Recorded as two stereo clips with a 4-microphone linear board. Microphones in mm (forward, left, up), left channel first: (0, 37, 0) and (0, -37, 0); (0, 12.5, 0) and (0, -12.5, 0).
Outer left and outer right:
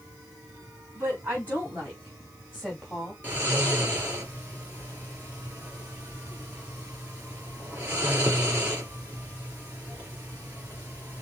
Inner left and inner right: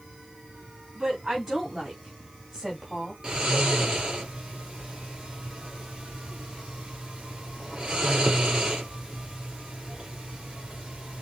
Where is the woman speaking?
30° right (ahead or behind), 2.5 m; by 3.1 s 5° left (ahead or behind), 1.6 m.